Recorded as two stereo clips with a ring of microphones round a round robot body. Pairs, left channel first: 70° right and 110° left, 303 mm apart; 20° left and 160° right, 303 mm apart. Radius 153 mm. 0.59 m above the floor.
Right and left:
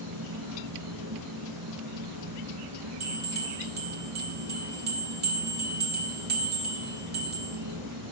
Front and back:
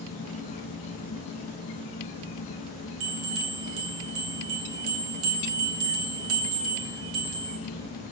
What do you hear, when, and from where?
0.0 s an insect: 85° left, 0.9 m
3.0 s a bell: 165° left, 1.6 m